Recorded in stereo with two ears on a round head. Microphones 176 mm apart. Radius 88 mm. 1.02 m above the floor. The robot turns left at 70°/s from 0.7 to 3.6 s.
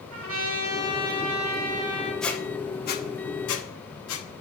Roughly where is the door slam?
I don't hear a door slam.